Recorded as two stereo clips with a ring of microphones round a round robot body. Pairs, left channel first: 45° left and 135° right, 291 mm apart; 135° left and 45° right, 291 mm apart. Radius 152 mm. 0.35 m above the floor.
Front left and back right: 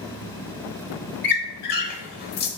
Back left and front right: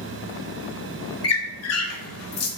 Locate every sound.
1.2 s a squeak: 100° left, 0.7 m